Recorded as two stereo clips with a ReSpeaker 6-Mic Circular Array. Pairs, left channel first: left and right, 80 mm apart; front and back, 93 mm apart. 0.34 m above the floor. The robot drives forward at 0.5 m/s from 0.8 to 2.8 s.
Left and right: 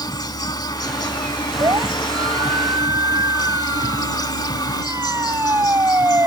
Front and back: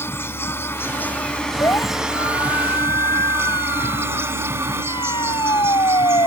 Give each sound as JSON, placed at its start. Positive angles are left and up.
{"t": 0.0, "sound": "an insect", "azimuth_deg": 65}
{"t": 1.6, "sound": "a siren", "azimuth_deg": -55}